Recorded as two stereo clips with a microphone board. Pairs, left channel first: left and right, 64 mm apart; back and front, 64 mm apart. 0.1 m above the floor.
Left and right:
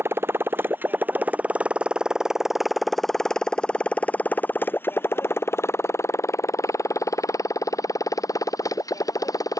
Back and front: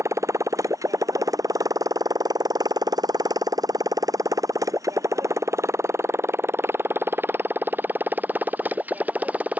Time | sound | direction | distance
0.0 | a motorcycle | 40° right | ?